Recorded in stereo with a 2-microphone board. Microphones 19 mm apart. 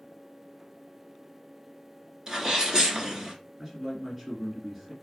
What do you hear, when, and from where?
2.3 s a sneeze: 35° right (ahead or behind), 1.3 m
3.6 s a man speaking: 15° right (ahead or behind), 1.6 m